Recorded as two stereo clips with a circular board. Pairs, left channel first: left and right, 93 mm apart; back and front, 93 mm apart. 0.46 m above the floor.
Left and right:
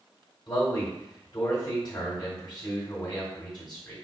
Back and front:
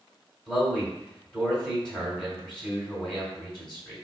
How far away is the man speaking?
About 1.9 m.